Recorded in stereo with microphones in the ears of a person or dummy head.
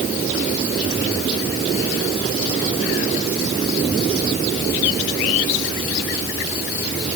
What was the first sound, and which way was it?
Only background noise.